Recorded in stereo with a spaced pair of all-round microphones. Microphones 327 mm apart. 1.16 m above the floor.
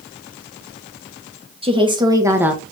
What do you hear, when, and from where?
1.6 s a woman speaking: 15° right (ahead or behind), 1.1 m; by 2.6 s centre (ahead or behind), 0.8 m